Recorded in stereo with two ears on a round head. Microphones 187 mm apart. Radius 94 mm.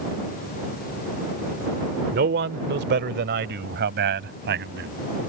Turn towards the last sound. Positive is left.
turn(degrees=-55)  # may be behind; listen again after turning